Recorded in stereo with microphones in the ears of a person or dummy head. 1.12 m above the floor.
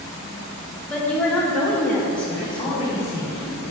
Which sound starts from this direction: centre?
A woman speaking, at 0.9 s.